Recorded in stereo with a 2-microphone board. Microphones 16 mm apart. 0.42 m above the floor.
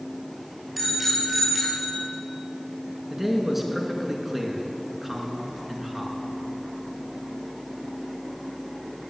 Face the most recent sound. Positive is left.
turn(degrees=-15)  # may be behind; listen again after turning